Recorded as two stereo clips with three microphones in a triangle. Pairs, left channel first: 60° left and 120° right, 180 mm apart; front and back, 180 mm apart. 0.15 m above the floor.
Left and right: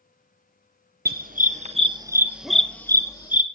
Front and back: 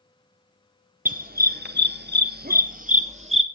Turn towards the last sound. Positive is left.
turn(degrees=125)